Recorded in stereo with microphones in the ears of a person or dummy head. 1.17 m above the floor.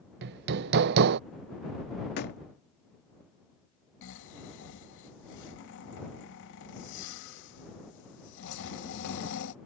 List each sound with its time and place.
0.2 s hammering: 60° right (ahead or behind)
2.2 s a door slam: 55° left (ahead or behind)
4.0 s snoring: 70° left (ahead or behind)